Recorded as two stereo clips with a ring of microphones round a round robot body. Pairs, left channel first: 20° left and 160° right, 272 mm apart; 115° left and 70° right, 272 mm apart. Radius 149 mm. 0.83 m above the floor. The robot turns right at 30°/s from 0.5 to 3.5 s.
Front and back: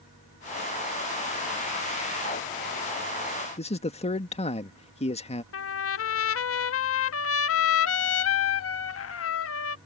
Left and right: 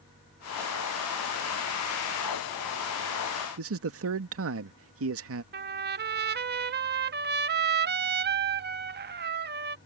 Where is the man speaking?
40° right.